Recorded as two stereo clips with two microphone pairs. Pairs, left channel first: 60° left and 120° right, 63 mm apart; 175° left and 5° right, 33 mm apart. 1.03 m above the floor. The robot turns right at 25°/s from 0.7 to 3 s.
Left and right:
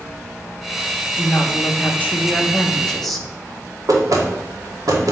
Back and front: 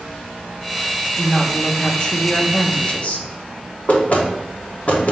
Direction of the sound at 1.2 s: 100° left.